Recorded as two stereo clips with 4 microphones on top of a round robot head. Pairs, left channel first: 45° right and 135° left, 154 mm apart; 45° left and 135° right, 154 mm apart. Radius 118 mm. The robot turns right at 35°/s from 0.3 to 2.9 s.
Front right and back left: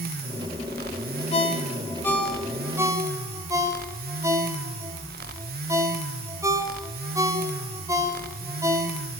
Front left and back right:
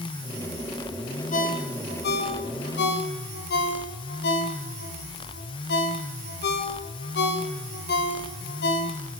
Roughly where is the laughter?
I don't hear laughter.